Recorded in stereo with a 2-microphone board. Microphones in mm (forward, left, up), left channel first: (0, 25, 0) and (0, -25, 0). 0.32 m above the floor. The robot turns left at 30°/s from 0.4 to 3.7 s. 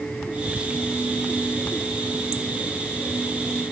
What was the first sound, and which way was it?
Whispering, 20° right (ahead or behind).